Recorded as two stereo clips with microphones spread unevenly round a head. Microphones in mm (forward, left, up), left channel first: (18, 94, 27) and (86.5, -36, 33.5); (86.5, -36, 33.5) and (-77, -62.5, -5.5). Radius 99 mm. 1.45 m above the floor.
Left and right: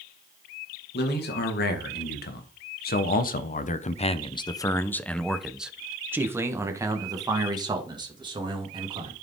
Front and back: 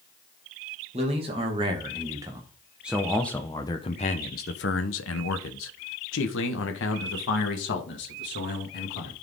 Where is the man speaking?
130° left, 2.0 m; by 9.1 s 5° right, 3 m.